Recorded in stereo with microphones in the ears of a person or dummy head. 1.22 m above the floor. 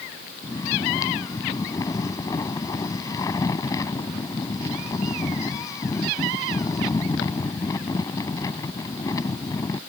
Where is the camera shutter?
No camera shutter in this recording.